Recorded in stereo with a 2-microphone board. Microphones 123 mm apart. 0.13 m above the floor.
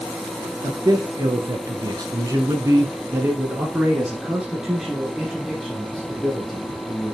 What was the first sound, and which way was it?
A man speaking, 35° right (ahead or behind).